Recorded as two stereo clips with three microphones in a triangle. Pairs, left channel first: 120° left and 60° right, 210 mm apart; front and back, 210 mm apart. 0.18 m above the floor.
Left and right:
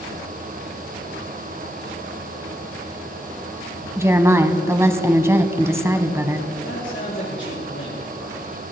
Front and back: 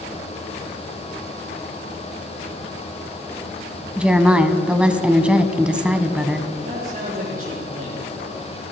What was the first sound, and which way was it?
A woman speaking, 105° right.